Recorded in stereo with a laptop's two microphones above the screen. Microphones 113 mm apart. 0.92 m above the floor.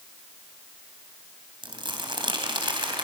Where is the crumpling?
45° right (ahead or behind), 3.5 m.